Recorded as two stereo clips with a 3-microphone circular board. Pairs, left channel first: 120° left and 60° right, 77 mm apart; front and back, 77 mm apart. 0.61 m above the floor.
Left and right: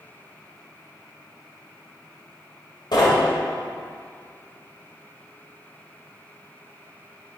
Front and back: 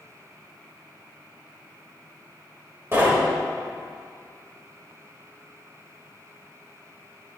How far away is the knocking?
About 1.4 m.